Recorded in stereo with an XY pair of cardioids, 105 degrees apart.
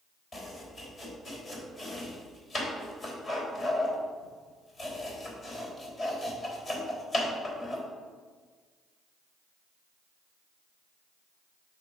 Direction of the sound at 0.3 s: 40° left.